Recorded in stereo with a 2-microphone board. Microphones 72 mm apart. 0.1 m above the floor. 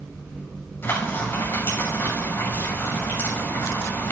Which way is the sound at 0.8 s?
30° left (ahead or behind).